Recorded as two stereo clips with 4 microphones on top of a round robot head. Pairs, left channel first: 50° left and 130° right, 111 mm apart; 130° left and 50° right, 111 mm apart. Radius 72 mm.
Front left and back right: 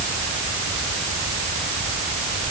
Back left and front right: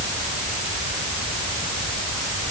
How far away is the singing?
No singing in this recording.